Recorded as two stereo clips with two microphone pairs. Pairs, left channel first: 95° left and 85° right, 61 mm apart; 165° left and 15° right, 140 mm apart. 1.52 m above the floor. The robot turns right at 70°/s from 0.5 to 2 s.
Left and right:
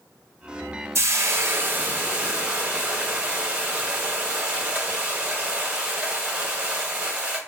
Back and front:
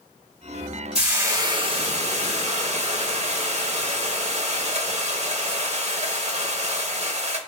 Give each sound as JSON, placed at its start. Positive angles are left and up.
{"t": 0.9, "sound": "frying", "azimuth_deg": -95, "distance_m": 0.7}